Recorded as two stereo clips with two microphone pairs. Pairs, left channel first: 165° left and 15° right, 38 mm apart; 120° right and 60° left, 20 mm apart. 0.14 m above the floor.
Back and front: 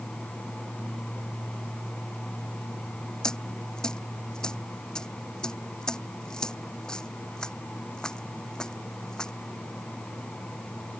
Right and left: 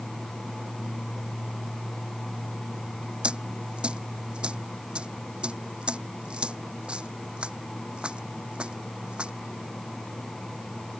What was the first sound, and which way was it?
A dropped coin, 90° left.